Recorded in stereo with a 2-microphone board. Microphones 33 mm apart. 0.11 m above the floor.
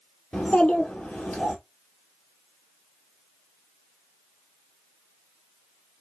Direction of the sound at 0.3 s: 45° left (ahead or behind).